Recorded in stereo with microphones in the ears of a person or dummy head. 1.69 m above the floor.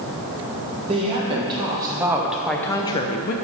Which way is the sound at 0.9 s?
30° right (ahead or behind).